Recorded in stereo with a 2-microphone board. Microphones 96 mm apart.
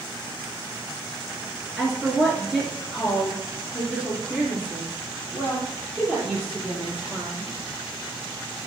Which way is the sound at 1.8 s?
Centre (ahead or behind).